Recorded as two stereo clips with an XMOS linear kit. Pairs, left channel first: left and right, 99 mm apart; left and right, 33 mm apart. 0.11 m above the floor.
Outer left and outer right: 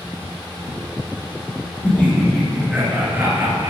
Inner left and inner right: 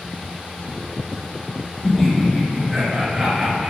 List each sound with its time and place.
1.8 s laughter: 20° left (ahead or behind), 1.6 m; by 3.7 s 40° right (ahead or behind), 2 m